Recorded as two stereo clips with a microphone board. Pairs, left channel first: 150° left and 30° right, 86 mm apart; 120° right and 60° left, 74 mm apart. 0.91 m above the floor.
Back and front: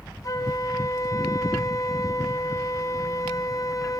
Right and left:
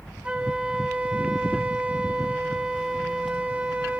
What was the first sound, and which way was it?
A flute, 130° left.